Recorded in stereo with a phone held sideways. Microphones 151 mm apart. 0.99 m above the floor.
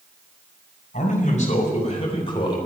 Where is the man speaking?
55° left (ahead or behind), 4.5 m; by 2.6 s 30° left (ahead or behind), 4 m.